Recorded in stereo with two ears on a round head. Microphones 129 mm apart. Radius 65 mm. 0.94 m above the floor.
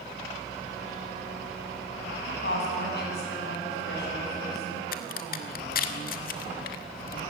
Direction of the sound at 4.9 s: 65° left (ahead or behind).